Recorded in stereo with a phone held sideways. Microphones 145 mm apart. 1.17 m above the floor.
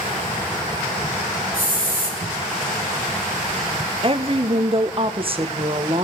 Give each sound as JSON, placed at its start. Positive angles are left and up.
{"t": 1.5, "sound": "a hiss", "side_deg": 85, "distance_m": 4.5}
{"t": 4.0, "sound": "a woman speaking", "side_deg": -40, "distance_m": 0.9}